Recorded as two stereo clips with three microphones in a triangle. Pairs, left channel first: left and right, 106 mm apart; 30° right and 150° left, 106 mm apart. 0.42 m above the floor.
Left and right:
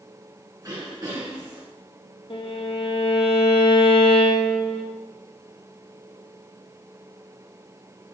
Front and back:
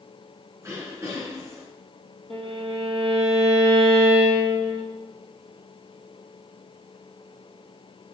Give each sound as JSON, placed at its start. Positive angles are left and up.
{"t": 0.6, "sound": "throat clearing", "azimuth_deg": -145, "distance_m": 2.5}
{"t": 2.3, "sound": "a violin", "azimuth_deg": 120, "distance_m": 2.0}